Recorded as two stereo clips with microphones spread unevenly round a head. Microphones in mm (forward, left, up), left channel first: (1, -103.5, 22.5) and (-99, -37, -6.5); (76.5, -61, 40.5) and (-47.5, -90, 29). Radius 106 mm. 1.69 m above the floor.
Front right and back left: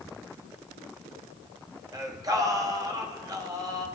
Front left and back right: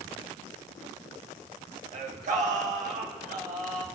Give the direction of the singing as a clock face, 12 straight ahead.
5 o'clock.